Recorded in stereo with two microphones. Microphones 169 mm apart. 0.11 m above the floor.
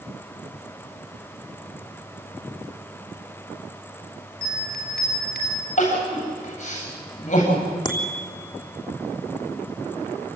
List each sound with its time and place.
4.4 s a bell: 65° left (ahead or behind), 4 m
5.8 s crying: 45° left (ahead or behind), 9 m
7.8 s a bicycle bell: 25° left (ahead or behind), 3 m